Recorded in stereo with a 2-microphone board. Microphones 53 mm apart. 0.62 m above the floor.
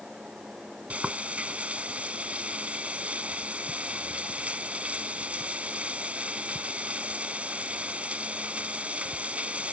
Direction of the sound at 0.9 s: 25° right (ahead or behind).